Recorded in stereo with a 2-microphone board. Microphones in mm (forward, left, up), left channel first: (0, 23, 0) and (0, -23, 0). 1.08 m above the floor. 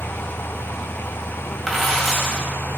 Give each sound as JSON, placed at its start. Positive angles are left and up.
{"t": 1.7, "sound": "a dropped coin", "side_deg": 0, "distance_m": 2.0}